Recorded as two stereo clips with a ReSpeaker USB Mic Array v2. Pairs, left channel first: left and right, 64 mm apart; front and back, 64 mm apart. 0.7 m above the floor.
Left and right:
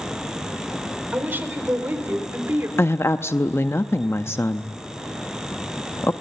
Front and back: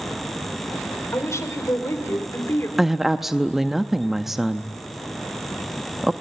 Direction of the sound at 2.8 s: 95° left.